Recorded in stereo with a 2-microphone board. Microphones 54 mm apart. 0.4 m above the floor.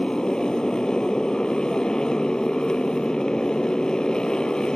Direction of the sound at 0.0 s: 15° left (ahead or behind).